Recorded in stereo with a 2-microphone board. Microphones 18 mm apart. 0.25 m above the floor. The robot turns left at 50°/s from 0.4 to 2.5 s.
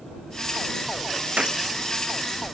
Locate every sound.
1.4 s a gunshot: 85° right; by 1.6 s 75° right (ahead or behind)